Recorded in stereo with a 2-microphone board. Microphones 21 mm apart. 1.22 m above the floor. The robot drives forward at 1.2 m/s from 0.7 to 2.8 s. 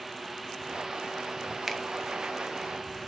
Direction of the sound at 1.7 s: 10° right (ahead or behind).